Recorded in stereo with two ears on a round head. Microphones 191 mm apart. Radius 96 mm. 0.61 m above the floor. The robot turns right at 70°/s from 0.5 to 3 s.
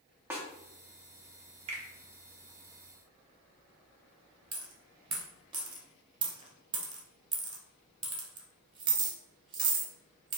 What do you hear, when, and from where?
0.3 s a snare drum: 10° right (ahead or behind), 0.7 m
1.7 s a finger snap: 30° right (ahead or behind), 0.8 m
4.5 s a dropped coin: 25° right (ahead or behind), 0.7 m